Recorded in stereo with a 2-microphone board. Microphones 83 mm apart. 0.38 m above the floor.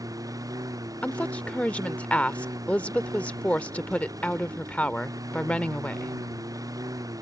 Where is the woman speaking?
15° left (ahead or behind).